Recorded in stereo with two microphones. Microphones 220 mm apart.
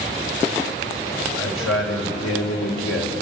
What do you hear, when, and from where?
1.4 s a man speaking: 85° left, 5.5 m